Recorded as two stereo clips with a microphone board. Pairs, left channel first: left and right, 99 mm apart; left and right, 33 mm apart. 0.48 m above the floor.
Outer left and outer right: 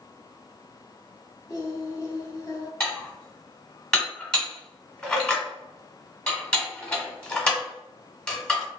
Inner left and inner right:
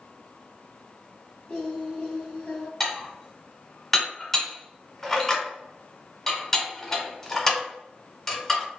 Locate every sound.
1.5 s singing: 35° left (ahead or behind), 0.8 m
2.8 s dishes clattering: 10° left (ahead or behind), 0.8 m